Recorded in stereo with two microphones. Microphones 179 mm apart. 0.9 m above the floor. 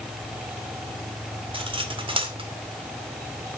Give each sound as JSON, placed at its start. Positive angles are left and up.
{"t": 1.5, "sound": "cutlery clinking", "side_deg": -30, "distance_m": 1.8}